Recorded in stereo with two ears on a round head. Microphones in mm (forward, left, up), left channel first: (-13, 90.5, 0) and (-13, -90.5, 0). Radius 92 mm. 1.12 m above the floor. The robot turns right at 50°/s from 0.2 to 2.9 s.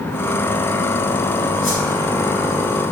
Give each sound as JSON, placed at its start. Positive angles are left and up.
{"t": 1.6, "sound": "a whoosh", "side_deg": 70, "distance_m": 4.5}